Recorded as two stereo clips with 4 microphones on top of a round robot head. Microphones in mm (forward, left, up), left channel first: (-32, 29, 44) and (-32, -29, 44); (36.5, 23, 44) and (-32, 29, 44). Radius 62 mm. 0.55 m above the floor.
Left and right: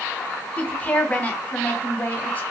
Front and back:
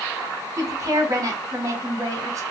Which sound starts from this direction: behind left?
A woman speaking, at 0.6 s.